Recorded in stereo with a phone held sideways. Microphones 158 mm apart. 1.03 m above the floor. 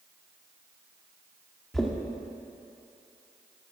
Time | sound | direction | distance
1.7 | knocking | centre (ahead or behind) | 1.6 m